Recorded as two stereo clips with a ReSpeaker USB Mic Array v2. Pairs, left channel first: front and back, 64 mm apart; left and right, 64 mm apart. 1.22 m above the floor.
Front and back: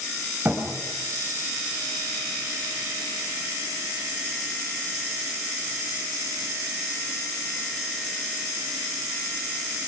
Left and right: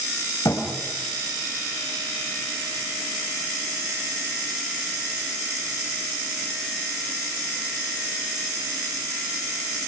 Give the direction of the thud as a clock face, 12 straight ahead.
8 o'clock.